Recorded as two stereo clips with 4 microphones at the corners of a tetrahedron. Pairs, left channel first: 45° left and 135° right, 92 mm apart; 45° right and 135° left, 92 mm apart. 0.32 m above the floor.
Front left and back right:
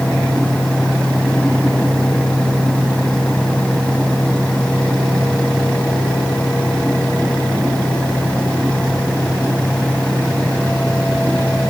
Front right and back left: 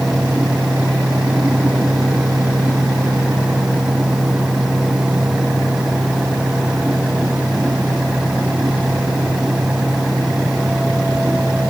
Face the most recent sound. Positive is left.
No sound to turn to.